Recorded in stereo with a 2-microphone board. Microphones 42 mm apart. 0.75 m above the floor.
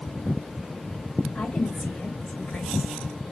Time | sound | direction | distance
1.4 | a woman speaking | 35° left (ahead or behind) | 2 m